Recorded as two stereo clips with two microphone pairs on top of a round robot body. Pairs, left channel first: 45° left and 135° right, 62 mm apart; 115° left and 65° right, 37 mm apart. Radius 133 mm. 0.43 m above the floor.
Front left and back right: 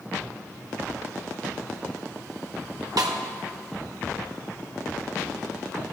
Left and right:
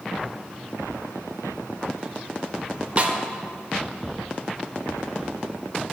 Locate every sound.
3.0 s a snare drum: 120° right, 1.1 m